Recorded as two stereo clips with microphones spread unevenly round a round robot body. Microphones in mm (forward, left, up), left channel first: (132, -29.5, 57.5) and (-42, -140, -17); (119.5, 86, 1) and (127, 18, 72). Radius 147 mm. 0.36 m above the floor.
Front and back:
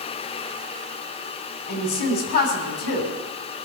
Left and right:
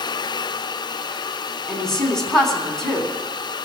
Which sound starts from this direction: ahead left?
A woman speaking, at 1.7 s.